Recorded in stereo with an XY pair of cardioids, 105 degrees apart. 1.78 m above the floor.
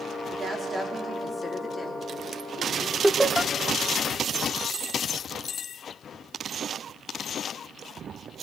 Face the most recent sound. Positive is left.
turn(degrees=-10)